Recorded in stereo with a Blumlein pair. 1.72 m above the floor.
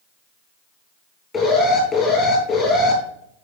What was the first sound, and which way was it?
An alarm, 20° left.